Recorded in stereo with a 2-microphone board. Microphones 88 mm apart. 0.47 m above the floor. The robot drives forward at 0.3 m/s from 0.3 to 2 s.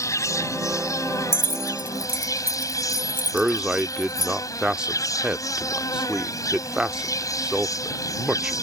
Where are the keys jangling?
25° left (ahead or behind); by 4.3 s 20° left (ahead or behind).